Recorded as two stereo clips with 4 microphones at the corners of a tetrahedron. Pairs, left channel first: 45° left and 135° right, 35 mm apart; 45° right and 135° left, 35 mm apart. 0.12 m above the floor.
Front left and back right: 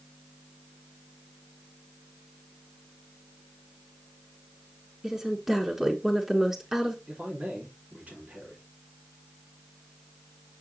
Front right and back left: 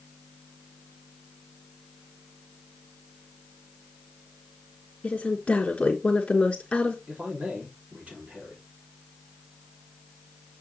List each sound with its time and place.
5.0 s a woman speaking: 65° right, 1.2 m
7.1 s a man speaking: straight behind, 3.5 m